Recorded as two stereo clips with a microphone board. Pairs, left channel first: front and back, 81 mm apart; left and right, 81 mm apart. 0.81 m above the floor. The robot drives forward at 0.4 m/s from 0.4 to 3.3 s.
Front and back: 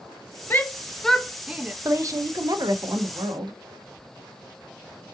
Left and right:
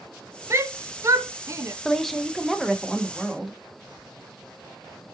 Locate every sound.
0.5 s a shout: 55° right, 0.7 m; by 1.8 s 120° right, 0.7 m
1.9 s a woman speaking: 175° left, 0.6 m